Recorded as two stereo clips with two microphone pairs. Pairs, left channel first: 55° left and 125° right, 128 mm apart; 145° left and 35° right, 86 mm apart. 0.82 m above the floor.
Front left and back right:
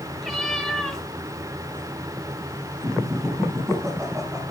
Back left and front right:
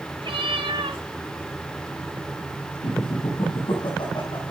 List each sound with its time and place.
0.2 s a cat meowing: 35° right, 3.5 m
2.8 s laughter: 165° left, 6.5 m